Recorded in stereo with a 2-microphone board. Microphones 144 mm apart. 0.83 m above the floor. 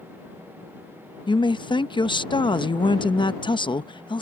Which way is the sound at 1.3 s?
35° left (ahead or behind).